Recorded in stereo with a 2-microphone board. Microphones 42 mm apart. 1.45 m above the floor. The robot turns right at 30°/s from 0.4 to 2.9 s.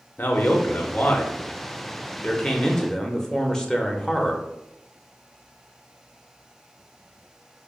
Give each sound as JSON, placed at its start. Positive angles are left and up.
{"t": 0.2, "sound": "a man speaking", "azimuth_deg": 90, "distance_m": 0.6}